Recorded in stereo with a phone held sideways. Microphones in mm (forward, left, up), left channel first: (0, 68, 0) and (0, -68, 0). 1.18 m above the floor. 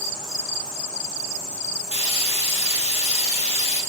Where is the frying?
50° left (ahead or behind), 0.8 m.